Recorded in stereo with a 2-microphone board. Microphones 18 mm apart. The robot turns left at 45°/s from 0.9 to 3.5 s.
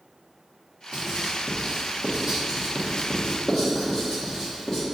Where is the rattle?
No rattle in this recording.